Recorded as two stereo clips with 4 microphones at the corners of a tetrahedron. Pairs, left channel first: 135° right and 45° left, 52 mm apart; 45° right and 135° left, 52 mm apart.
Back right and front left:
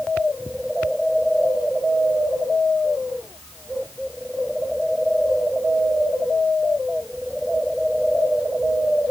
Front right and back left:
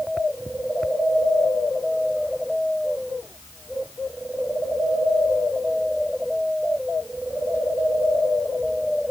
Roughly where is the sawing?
I don't hear sawing.